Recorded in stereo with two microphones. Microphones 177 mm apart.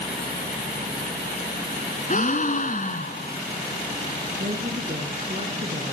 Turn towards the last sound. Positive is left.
turn(degrees=-40)  # may be behind; listen again after turning